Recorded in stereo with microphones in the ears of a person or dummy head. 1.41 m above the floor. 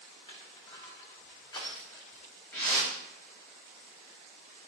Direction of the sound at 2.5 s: 15° left (ahead or behind).